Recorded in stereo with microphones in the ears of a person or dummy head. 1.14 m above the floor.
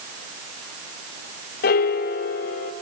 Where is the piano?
60° left (ahead or behind), 1.0 m.